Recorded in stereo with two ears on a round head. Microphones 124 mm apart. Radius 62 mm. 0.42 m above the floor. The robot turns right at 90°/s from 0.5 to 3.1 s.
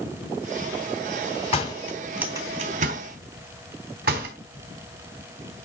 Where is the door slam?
45° left (ahead or behind), 2.5 m; by 4.3 s 75° right (ahead or behind), 2.5 m.